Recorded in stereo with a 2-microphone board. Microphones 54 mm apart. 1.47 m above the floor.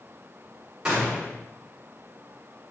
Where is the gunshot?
15° right (ahead or behind), 3.5 m.